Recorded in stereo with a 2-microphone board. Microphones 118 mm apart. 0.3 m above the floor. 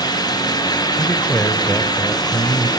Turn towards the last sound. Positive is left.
turn(degrees=0)  # may be behind; listen again after turning